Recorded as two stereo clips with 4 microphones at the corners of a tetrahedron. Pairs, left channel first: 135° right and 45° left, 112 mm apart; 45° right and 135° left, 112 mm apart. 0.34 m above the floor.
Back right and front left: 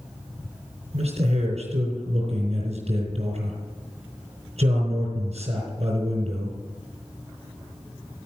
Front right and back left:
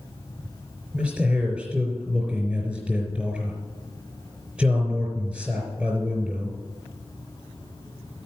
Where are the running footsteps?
I don't hear running footsteps.